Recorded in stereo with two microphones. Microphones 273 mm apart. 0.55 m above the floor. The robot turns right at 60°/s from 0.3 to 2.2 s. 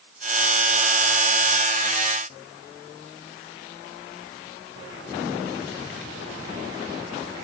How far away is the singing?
No singing in this recording.